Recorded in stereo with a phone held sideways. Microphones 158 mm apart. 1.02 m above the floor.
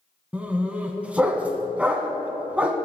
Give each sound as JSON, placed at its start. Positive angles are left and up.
{"t": 0.3, "sound": "a dog barking", "side_deg": -10, "distance_m": 1.9}